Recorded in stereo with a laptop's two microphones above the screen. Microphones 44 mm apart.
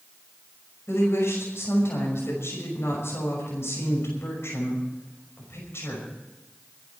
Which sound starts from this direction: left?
A woman speaking, at 0.9 s.